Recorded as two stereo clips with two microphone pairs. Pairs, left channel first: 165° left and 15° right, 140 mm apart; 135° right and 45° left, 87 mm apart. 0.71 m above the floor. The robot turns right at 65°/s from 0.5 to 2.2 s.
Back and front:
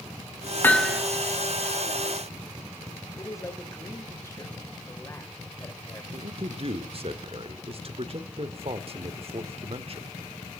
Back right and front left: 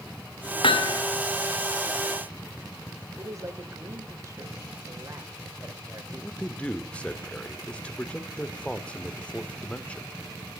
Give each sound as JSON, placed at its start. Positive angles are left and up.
{"t": 0.6, "sound": "hammering", "azimuth_deg": -120, "distance_m": 1.3}
{"t": 3.2, "sound": "a man speaking", "azimuth_deg": 95, "distance_m": 3.0}
{"t": 6.1, "sound": "a man speaking", "azimuth_deg": -60, "distance_m": 1.7}